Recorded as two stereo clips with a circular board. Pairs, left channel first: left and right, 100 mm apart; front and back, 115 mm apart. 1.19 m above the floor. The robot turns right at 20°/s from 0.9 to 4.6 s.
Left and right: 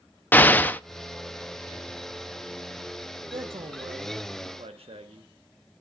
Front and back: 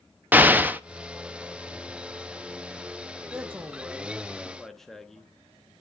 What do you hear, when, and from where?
0.3 s an explosion: 130° left, 0.5 m
3.3 s a man speaking: 115° right, 1.2 m; by 5.3 s 90° right, 1.2 m